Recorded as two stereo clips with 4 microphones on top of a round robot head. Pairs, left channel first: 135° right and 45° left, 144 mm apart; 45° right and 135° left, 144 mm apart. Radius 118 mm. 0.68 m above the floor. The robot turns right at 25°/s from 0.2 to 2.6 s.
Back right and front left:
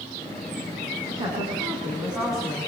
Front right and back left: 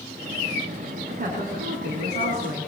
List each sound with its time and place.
1.1 s a woman speaking: 100° left, 7 m; by 2.7 s 140° left, 7 m